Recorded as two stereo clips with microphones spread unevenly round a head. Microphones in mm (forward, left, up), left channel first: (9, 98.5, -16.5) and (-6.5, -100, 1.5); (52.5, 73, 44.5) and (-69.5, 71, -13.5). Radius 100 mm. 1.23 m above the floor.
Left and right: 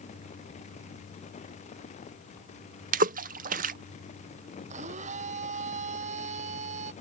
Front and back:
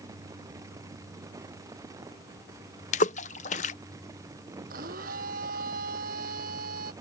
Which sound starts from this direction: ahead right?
A splash, at 2.9 s.